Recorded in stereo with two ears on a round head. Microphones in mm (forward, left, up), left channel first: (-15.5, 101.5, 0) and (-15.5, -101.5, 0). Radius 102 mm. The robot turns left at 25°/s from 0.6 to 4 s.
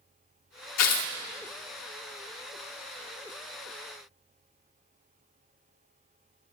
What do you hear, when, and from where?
0.8 s tearing paper: 85° left, 1.5 m; by 1.1 s 90° left, 1.5 m